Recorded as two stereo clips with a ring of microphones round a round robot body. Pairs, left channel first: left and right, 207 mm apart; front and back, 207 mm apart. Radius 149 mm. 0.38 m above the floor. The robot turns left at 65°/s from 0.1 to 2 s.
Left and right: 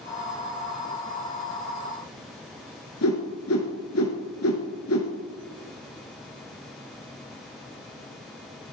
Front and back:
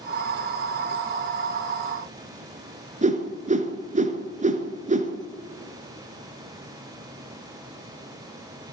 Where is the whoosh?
125° left, 1.7 m.